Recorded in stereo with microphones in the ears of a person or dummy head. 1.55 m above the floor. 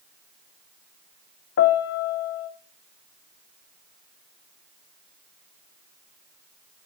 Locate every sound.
1.6 s a piano: 60° left (ahead or behind), 0.9 m